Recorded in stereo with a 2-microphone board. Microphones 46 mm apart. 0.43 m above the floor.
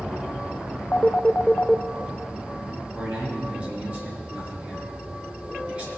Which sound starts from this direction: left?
A phone ringing, at 0.9 s.